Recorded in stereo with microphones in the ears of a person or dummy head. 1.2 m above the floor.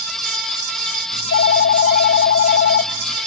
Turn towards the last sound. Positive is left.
turn(degrees=50)  # may be behind; listen again after turning